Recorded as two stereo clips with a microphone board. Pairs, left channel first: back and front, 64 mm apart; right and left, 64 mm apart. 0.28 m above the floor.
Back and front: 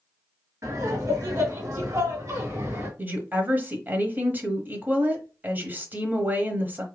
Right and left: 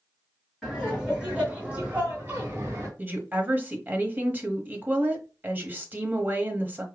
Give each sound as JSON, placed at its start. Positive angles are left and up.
{"t": 0.6, "sound": "laughter", "azimuth_deg": 5, "distance_m": 1.7}
{"t": 3.0, "sound": "a woman speaking", "azimuth_deg": 45, "distance_m": 1.1}